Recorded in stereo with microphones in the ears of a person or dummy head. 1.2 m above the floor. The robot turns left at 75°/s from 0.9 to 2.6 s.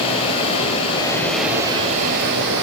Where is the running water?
35° left, 3 m; by 2.6 s 90° right, 3 m.